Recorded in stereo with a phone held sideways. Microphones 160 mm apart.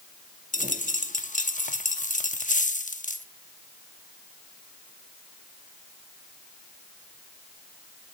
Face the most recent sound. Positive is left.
turn(degrees=60)  # may be behind; listen again after turning